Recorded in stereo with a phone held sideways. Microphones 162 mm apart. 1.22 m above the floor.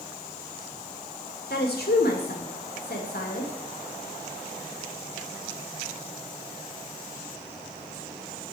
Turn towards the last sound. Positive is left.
turn(degrees=80)